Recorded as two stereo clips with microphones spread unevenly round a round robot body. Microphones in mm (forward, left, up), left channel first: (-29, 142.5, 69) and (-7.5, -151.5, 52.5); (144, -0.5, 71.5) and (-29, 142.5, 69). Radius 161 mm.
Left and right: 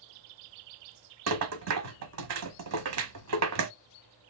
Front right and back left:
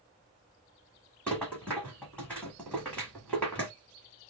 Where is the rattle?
125° right, 0.6 m.